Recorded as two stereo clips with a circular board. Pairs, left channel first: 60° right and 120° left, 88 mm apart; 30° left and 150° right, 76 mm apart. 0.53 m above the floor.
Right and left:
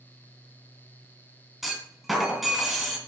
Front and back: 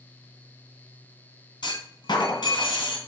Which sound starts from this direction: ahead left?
A clunk, at 1.6 s.